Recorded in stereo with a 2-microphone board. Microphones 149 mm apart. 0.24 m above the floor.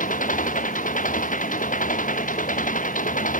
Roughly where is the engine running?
Left.